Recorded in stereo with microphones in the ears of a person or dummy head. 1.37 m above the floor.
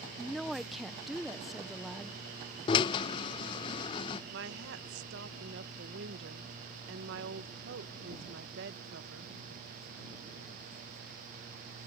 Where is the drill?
30° left (ahead or behind).